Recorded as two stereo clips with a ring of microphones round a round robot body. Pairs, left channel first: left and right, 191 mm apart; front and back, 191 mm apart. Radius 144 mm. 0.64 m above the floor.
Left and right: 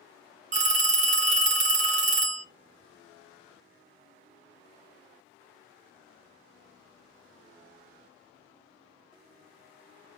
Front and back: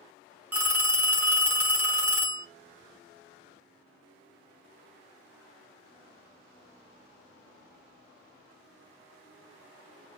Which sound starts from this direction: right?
A phone ringing, at 0.5 s.